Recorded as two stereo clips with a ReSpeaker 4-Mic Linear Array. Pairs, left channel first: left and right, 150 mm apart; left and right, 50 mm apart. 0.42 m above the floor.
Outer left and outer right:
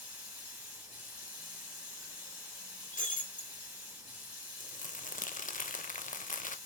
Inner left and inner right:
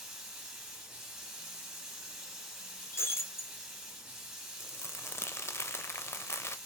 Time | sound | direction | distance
0.0 | running water | 10° right (ahead or behind) | 2.5 m
2.9 | breaking glass | 65° left (ahead or behind) | 1.9 m
4.6 | crumpling | 60° left (ahead or behind) | 0.5 m